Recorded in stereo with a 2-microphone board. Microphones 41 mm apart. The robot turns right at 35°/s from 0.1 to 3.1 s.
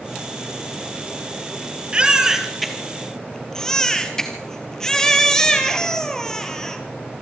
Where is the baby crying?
25° right, 2 m; by 6.8 s 15° left, 2 m.